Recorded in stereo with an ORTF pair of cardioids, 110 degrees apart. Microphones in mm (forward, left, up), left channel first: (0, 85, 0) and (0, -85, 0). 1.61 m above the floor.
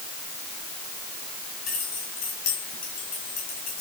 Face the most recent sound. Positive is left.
turn(degrees=60)